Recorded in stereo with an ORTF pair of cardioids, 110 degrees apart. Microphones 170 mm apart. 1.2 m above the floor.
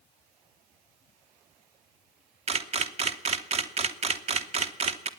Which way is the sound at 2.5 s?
40° right.